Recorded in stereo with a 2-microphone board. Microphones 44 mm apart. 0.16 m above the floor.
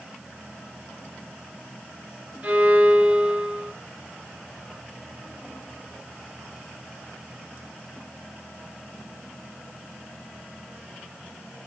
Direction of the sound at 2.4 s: 30° right (ahead or behind).